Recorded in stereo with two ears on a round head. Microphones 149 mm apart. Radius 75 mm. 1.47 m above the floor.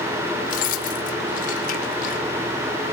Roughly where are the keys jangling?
Left.